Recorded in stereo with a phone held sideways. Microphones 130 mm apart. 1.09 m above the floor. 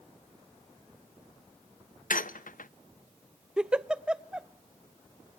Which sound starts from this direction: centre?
A giggle, at 3.6 s.